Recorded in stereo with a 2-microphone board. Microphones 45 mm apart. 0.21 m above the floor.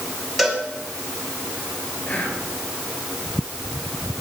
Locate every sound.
0.4 s a cowbell: 5° left (ahead or behind), 2.5 m
2.0 s whispering: 35° left (ahead or behind), 4 m